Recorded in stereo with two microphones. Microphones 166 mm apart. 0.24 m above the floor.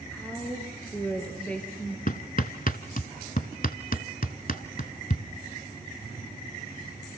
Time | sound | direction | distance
0.1 | a woman speaking | 5° left (ahead or behind) | 4 m
2.1 | hammering | 60° left (ahead or behind) | 1.0 m